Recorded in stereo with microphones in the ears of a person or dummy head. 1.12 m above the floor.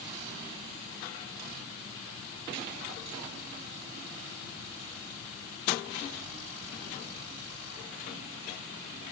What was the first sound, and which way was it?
Only background noise.